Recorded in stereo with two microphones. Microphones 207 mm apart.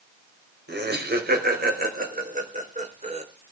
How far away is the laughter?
About 4 m.